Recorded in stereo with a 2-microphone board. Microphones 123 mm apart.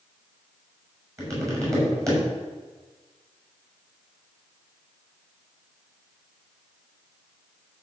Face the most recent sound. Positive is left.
turn(degrees=-25)  # may be behind; listen again after turning